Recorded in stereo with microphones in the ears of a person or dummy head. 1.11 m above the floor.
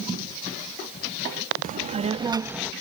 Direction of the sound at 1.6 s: 40° right (ahead or behind).